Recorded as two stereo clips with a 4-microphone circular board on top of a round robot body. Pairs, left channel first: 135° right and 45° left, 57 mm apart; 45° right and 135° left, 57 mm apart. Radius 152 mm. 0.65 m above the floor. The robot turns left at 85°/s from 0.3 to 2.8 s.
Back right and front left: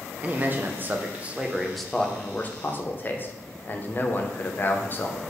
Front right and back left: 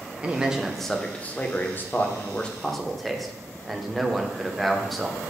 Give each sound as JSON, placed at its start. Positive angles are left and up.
{"t": 0.2, "sound": "a man speaking", "azimuth_deg": 80, "distance_m": 0.7}